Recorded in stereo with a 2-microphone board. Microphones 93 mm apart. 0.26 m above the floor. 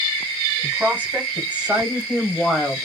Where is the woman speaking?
20° right (ahead or behind), 1.7 m; by 2.8 s 5° left (ahead or behind), 1.1 m.